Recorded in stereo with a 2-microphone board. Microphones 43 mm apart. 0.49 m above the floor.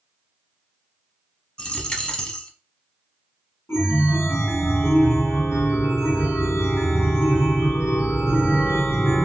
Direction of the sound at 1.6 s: 20° left (ahead or behind).